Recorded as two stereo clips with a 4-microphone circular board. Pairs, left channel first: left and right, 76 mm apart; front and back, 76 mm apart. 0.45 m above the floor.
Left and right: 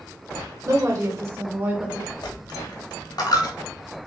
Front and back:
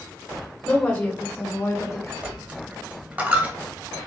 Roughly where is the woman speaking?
Ahead right.